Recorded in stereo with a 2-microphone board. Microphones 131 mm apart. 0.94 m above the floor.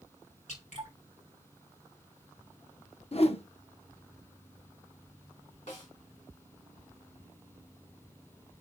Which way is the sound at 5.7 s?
70° left (ahead or behind).